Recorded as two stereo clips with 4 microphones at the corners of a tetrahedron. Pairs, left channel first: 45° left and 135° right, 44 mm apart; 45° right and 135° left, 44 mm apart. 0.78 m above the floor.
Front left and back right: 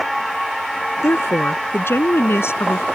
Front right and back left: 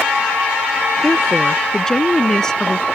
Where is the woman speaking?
35° left; by 2.9 s 30° left.